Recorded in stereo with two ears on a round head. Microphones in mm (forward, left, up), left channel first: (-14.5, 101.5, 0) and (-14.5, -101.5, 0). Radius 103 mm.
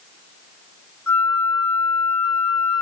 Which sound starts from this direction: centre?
A flute, at 1.1 s.